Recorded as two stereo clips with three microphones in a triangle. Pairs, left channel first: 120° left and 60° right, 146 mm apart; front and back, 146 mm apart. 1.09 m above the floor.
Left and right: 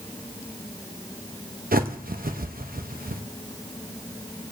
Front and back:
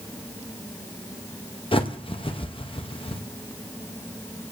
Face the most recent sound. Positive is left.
turn(degrees=-50)